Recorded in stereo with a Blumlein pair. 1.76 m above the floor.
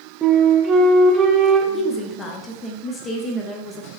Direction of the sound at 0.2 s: 20° right.